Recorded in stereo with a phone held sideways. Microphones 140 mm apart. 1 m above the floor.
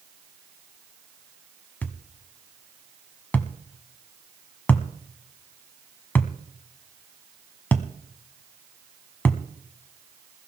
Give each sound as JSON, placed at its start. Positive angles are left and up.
{"t": 1.8, "sound": "a thud", "side_deg": 10, "distance_m": 1.1}